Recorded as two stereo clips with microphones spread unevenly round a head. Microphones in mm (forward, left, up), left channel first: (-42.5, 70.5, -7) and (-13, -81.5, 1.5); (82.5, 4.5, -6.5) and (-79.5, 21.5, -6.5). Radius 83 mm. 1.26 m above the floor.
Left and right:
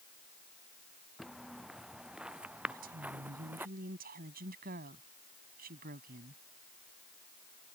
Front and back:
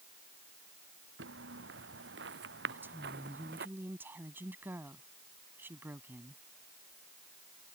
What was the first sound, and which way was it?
Footsteps, 165° right.